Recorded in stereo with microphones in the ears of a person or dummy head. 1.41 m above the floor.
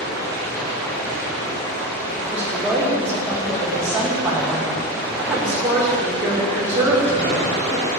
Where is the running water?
20° left (ahead or behind), 4 m.